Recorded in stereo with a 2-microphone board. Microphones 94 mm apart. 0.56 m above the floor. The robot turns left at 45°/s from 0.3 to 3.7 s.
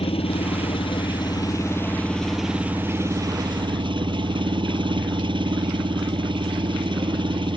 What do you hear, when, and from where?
0.0 s an engine running: 95° left; by 7.6 s 60° right